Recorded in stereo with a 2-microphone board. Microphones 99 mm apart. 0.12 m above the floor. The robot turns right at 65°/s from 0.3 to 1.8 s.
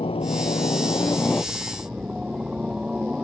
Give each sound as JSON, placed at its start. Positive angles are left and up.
{"t": 0.0, "sound": "a helicopter", "azimuth_deg": 90}